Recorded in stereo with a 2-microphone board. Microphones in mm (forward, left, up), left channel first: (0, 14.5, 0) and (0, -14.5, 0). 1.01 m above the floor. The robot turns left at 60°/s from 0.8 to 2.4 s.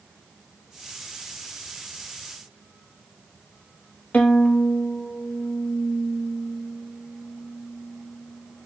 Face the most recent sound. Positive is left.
turn(degrees=60)  # may be behind; listen again after turning